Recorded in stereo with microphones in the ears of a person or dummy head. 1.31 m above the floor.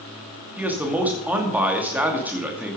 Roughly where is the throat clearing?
I don't hear throat clearing.